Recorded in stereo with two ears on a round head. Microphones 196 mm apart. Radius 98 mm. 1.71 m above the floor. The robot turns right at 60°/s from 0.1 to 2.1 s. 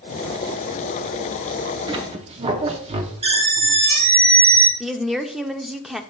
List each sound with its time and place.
1.9 s a squeak: 20° right (ahead or behind), 0.7 m; by 4.7 s 25° right (ahead or behind), 0.7 m
4.8 s a woman speaking: centre (ahead or behind), 0.6 m